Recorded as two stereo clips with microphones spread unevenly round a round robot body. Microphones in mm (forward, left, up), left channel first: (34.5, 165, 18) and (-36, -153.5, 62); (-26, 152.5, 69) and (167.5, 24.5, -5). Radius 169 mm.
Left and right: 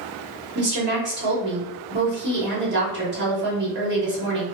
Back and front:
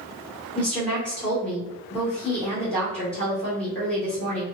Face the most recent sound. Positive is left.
turn(degrees=-90)